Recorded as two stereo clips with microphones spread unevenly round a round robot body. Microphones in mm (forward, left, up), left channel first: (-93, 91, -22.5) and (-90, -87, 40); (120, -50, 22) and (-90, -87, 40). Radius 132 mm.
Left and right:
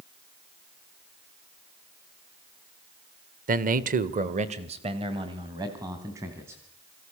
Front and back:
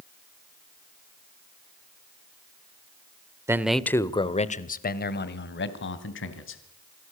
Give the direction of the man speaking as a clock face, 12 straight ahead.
3 o'clock.